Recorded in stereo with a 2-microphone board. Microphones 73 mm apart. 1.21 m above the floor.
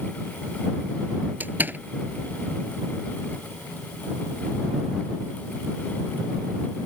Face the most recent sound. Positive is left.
turn(degrees=-25)  # may be behind; listen again after turning